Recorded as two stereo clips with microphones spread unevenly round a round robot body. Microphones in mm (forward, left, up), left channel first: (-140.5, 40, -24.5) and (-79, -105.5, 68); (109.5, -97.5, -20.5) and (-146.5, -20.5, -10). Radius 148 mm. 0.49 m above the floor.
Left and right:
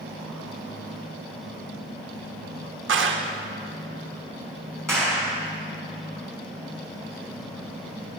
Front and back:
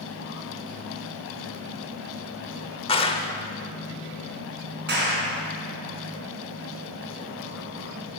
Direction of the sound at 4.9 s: 145° right.